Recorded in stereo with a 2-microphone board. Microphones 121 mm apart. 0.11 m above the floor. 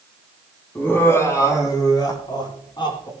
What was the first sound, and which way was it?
Laughter, 15° left (ahead or behind).